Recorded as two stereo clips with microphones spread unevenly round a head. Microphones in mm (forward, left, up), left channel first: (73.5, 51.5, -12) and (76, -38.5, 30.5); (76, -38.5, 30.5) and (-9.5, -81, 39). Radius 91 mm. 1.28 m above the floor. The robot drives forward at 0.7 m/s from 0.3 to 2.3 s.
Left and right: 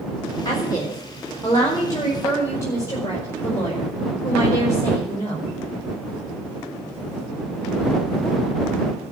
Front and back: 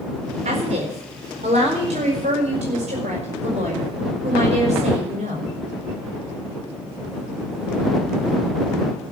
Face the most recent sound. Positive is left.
turn(degrees=165)